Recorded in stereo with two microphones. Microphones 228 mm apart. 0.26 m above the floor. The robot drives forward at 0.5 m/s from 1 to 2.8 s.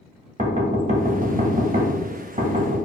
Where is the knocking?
35° right (ahead or behind), 0.7 m; by 2.8 s 25° right (ahead or behind), 0.9 m.